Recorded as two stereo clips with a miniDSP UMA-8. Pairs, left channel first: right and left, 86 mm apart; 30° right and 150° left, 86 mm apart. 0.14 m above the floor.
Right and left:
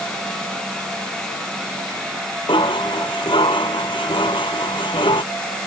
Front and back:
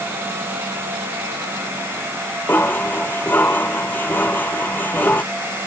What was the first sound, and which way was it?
Dishes clattering, 100° right.